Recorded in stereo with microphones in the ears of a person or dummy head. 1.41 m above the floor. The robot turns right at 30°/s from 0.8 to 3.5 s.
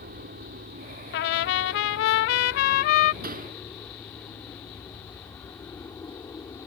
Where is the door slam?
50° right (ahead or behind); by 3.6 s 40° right (ahead or behind).